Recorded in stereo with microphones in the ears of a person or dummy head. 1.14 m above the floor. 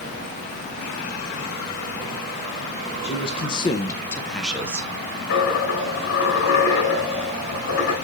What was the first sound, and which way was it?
A man speaking, 30° left (ahead or behind).